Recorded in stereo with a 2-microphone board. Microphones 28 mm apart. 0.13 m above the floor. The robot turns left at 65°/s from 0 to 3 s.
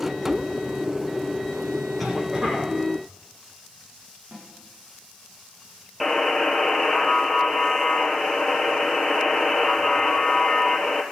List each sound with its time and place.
2.0 s a cough: 5° right, 5 m; by 2.7 s 55° right, 5 m
4.3 s a snare drum: 90° right, 9 m
6.0 s a buzzer: 5° left (ahead or behind), 1.4 m